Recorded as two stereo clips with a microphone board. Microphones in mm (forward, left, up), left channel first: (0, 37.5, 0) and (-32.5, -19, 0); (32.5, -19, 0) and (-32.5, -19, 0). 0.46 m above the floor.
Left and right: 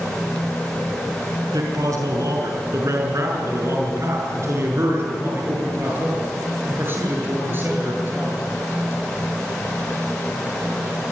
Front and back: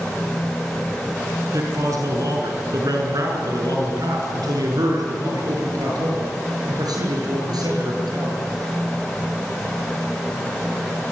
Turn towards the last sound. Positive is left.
turn(degrees=180)